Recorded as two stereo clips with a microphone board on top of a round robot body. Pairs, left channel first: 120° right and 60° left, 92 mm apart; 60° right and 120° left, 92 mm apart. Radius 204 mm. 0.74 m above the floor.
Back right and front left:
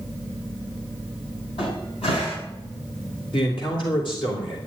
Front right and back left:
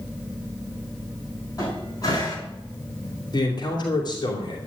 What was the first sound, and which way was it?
A cupboard door, 110° right.